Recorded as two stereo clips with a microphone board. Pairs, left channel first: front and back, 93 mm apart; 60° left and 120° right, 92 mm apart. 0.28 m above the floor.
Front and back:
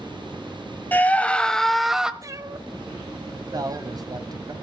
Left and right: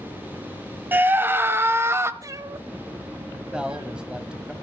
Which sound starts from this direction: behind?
A man speaking, at 3.5 s.